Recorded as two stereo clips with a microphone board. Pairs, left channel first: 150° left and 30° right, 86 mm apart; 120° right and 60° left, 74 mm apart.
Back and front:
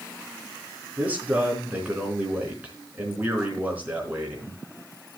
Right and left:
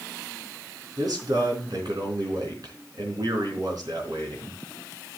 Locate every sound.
1.0 s a man speaking: 40° left, 4 m